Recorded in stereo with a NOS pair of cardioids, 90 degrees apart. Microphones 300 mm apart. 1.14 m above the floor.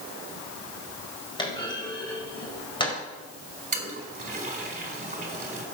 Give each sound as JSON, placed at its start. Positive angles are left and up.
{"t": 1.4, "sound": "a clunk", "azimuth_deg": 15, "distance_m": 4.5}
{"t": 3.7, "sound": "a toilet flushing", "azimuth_deg": -25, "distance_m": 4.0}